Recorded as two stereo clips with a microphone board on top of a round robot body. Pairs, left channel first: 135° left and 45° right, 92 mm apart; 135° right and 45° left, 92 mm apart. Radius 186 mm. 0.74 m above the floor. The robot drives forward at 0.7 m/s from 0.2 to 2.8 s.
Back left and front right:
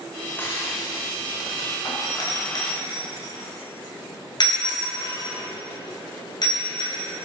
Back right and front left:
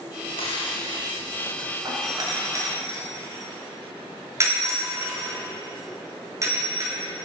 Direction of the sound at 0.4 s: 155° right.